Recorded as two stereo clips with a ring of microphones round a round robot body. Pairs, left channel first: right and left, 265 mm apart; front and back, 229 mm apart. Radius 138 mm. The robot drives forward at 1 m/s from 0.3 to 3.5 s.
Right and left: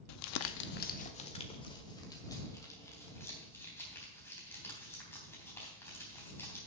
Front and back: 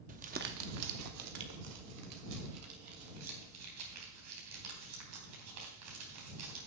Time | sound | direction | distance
0.1 | crumpling | 120° right | 0.6 m